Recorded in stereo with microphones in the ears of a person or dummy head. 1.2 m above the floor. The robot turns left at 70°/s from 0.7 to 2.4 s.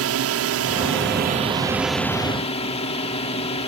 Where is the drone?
90° right; by 3.7 s 150° left.